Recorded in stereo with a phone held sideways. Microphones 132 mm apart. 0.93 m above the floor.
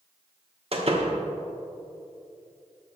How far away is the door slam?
About 1.2 m.